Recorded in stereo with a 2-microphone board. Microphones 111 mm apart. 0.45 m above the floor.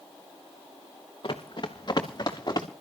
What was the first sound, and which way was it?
Running footsteps, 45° left (ahead or behind).